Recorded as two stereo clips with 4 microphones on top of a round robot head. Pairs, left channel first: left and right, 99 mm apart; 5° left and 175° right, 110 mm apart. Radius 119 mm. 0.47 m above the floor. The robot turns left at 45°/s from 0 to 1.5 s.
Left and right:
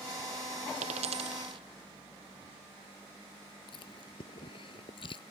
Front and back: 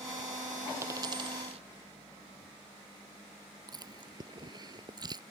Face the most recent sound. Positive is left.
turn(degrees=135)